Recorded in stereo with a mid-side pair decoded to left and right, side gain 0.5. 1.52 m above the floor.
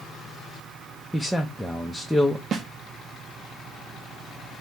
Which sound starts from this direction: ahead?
A man speaking, at 1.1 s.